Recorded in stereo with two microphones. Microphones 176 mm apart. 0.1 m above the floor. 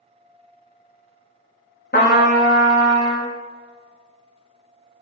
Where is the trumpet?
75° left (ahead or behind), 1.5 m.